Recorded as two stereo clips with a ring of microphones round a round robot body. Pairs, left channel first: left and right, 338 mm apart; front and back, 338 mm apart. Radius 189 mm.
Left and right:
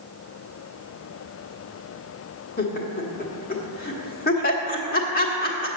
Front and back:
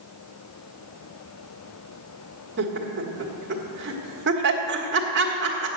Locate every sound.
2.6 s laughter: 140° left, 1.4 m